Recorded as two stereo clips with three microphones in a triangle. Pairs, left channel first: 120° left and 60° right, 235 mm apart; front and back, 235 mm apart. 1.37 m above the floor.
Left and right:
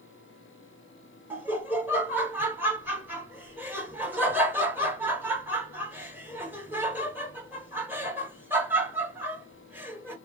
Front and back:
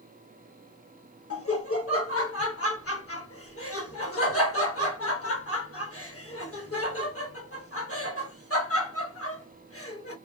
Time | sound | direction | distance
1.3 | laughter | 20° left | 0.8 m